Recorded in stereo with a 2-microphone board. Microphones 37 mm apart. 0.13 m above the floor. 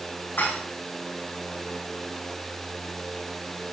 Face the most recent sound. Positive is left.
turn(degrees=70)  # may be behind; listen again after turning